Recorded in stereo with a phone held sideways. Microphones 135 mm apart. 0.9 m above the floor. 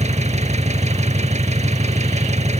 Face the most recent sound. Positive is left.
turn(degrees=-55)  # may be behind; listen again after turning